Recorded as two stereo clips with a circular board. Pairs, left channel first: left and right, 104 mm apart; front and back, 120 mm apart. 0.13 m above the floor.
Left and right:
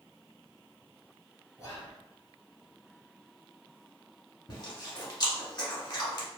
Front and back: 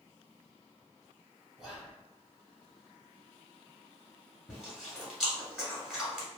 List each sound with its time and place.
1.6 s whispering: 95° left, 1.2 m
4.5 s chewing: 95° left, 1.2 m